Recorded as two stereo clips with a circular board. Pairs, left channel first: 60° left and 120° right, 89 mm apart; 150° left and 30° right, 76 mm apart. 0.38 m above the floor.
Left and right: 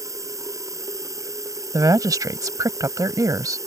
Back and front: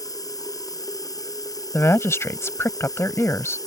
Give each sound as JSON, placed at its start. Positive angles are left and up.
{"t": 0.0, "sound": "running water", "azimuth_deg": -175}
{"t": 1.7, "sound": "a woman speaking", "azimuth_deg": -160}